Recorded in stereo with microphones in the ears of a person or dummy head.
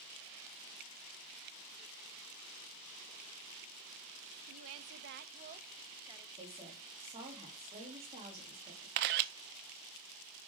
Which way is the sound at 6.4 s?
25° right (ahead or behind).